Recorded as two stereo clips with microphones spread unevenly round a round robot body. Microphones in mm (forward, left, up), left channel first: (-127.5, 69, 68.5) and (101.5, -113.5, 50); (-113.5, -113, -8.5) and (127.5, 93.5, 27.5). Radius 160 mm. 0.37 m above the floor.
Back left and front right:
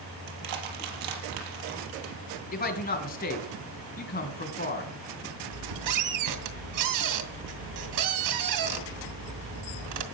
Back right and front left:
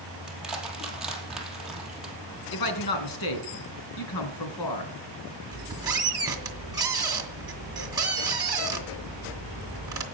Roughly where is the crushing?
Ahead right.